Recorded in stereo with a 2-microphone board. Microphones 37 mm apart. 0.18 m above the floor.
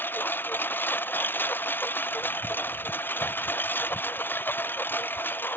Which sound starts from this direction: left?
A lawn mower, at 0.0 s.